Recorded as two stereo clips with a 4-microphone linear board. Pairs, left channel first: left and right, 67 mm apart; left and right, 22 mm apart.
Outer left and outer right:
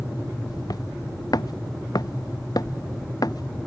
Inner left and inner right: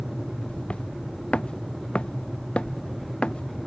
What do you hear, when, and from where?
0.5 s footsteps: 75° left (ahead or behind); by 3.6 s 70° left (ahead or behind)